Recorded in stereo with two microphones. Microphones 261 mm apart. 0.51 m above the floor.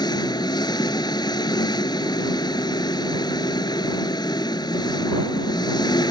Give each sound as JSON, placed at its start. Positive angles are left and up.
{"t": 0.0, "sound": "an engine running", "side_deg": 15}